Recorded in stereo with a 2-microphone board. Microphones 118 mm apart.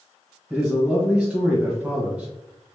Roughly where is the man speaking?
Centre.